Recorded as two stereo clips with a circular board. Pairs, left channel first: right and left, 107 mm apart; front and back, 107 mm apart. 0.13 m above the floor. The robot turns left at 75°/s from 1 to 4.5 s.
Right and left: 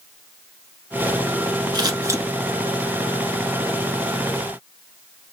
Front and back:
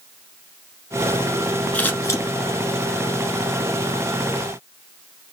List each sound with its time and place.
1.7 s scissors: 70° left, 1.0 m; by 2.2 s 35° left, 1.0 m